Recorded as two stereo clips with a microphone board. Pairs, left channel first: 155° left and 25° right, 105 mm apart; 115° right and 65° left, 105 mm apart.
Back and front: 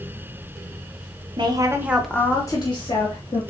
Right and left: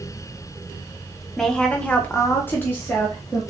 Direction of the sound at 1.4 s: 30° right.